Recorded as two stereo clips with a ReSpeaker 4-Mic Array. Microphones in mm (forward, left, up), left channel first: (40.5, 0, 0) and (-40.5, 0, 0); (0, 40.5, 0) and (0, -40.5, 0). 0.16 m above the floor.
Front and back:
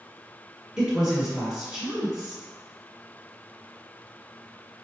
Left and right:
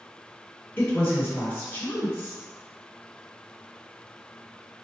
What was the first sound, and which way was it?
A woman speaking, 105° left.